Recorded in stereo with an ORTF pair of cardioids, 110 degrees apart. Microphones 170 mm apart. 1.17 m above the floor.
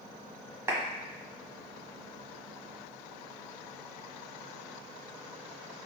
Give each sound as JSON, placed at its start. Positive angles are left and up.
{"t": 0.7, "sound": "a clap", "azimuth_deg": -15, "distance_m": 1.3}